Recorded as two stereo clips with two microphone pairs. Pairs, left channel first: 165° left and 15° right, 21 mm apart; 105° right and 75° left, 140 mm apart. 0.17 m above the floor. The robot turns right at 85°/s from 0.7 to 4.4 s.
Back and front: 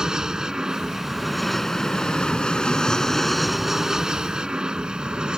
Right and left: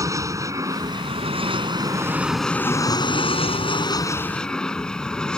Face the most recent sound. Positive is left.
turn(degrees=-20)